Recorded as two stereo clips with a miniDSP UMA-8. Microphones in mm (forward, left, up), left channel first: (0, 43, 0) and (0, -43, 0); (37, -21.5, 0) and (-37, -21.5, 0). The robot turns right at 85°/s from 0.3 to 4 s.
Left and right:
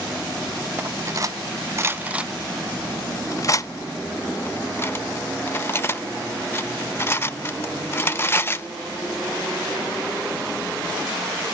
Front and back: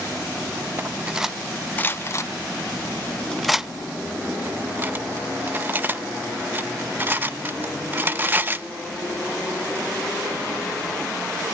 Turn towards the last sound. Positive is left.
turn(degrees=135)